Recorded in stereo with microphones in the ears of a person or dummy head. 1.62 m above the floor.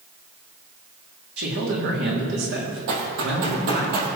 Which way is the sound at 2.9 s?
55° right (ahead or behind).